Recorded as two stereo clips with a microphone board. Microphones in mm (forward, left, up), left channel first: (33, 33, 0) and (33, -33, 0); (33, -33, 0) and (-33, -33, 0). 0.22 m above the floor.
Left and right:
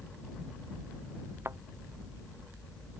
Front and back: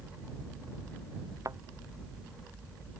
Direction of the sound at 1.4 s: 140° right.